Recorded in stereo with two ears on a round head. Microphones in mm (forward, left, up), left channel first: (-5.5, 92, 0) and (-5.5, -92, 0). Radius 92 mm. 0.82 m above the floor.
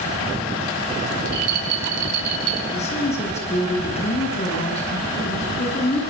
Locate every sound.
1.2 s a rattle: 85° right, 5 m
2.7 s a woman speaking: 35° left (ahead or behind), 9.5 m